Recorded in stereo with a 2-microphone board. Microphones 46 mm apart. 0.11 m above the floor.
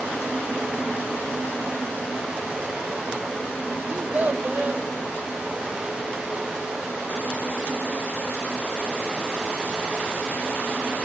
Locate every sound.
3.9 s a child speaking: 30° right (ahead or behind), 2 m